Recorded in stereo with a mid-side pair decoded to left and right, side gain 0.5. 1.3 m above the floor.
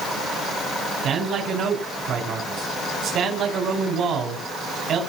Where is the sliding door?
No sliding door in this recording.